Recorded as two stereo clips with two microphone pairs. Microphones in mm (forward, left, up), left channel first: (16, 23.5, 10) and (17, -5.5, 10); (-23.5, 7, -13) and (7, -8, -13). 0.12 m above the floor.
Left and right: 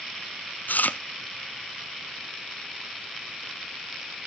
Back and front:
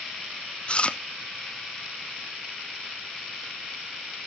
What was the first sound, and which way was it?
Chewing, 100° left.